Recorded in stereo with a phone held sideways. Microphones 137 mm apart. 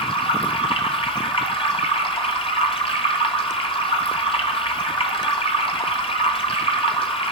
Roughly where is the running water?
Left.